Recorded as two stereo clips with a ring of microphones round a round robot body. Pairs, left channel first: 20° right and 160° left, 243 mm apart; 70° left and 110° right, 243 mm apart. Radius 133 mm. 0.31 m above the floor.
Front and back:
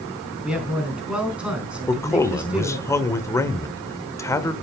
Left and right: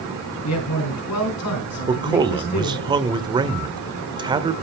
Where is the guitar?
I don't hear a guitar.